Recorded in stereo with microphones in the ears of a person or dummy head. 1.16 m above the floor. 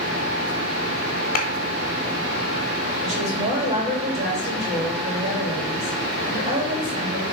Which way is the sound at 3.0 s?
30° right (ahead or behind).